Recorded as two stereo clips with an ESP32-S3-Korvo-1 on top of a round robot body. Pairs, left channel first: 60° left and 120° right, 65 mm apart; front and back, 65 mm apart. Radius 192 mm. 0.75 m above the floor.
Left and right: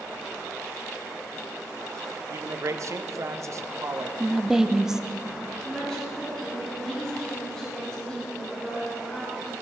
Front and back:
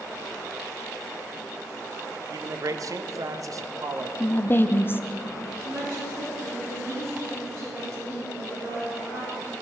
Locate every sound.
2.3 s a man speaking: 155° right, 0.7 m
4.2 s a woman speaking: 45° right, 0.6 m
5.6 s a woman speaking: 135° left, 3.5 m